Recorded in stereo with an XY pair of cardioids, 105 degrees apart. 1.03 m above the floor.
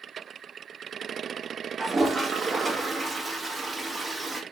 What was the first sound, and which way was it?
A toilet flushing, 20° right.